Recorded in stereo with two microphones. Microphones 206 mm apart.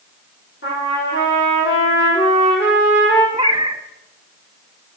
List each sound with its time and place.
0.6 s a trumpet: 80° left, 5 m
3.3 s a cat meowing: 25° right (ahead or behind), 0.6 m